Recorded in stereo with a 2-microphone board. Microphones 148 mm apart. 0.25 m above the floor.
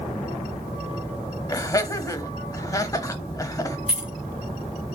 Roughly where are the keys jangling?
Centre.